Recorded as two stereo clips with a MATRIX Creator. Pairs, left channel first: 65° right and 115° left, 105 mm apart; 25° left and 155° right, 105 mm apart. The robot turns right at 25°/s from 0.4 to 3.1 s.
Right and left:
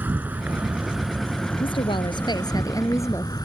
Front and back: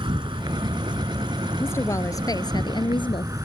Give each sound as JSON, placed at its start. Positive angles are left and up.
{"t": 0.0, "sound": "an insect", "azimuth_deg": -175}
{"t": 1.6, "sound": "a woman speaking", "azimuth_deg": -45}